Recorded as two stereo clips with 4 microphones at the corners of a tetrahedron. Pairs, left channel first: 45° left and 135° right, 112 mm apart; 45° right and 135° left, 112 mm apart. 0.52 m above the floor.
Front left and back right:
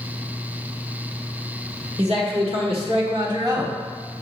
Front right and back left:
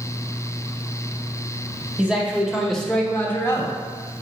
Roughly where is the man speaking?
Behind right.